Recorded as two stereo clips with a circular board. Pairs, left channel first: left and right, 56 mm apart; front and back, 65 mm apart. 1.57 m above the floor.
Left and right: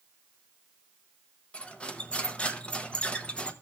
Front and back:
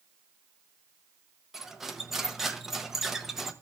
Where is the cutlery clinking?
110° left, 0.8 m.